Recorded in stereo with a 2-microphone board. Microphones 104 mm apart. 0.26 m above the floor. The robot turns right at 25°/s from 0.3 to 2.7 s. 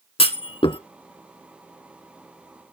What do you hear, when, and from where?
0.2 s a clunk: 65° left (ahead or behind), 0.7 m; by 0.8 s 50° left (ahead or behind), 0.7 m